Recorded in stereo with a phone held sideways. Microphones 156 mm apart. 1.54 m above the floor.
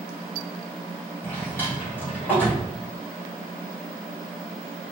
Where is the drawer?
10° left (ahead or behind), 2.0 m.